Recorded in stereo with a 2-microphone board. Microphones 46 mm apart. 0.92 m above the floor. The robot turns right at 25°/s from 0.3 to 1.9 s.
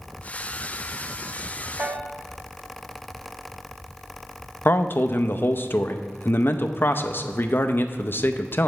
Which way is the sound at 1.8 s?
55° right (ahead or behind).